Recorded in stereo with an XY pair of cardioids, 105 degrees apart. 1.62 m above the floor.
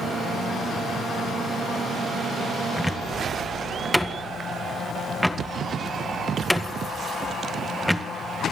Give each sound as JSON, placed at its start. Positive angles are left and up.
{"t": 2.8, "sound": "a cupboard door", "azimuth_deg": 0, "distance_m": 1.7}